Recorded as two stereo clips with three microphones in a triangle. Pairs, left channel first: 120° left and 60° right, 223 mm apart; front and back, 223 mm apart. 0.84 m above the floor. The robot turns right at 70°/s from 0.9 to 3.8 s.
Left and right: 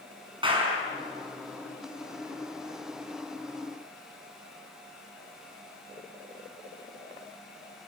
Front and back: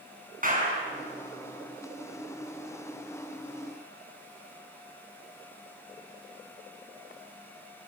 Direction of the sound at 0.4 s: 130° right.